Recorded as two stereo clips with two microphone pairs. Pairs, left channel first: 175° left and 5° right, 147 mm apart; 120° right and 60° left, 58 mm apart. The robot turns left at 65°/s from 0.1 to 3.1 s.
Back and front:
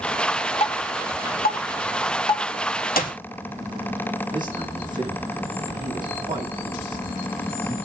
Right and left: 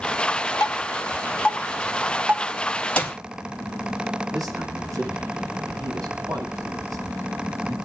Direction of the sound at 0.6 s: 140° right.